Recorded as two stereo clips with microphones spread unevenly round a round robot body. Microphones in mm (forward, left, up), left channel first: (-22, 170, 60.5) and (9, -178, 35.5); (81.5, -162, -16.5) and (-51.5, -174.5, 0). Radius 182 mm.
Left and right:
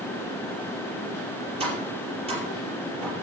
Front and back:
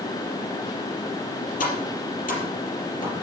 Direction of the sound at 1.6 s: 10° right.